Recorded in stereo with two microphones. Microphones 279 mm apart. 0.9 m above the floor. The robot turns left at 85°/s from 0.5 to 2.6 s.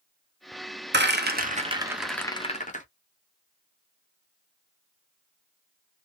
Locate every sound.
0.9 s a rattle: 40° right (ahead or behind), 0.8 m; by 2.9 s 25° left (ahead or behind), 0.8 m